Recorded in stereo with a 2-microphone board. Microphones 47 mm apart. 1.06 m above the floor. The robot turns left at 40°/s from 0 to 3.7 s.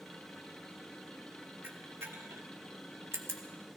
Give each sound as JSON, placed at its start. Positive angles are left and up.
{"t": 1.6, "sound": "a camera shutter", "side_deg": -45, "distance_m": 1.4}